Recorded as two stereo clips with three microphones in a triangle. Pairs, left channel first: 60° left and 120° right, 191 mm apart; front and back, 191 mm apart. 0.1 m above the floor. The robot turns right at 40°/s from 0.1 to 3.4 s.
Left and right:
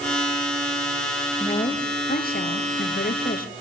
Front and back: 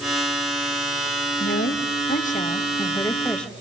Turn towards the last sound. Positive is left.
turn(degrees=85)